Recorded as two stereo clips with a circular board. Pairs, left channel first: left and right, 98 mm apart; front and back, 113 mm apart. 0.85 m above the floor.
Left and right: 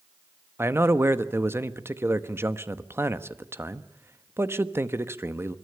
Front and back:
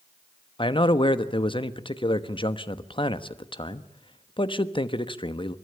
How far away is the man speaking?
About 1.1 m.